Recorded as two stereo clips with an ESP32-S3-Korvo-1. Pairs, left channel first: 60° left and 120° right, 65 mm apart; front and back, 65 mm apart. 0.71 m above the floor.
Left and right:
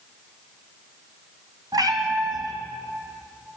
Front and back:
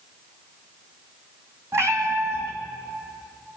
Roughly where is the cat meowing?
Behind right.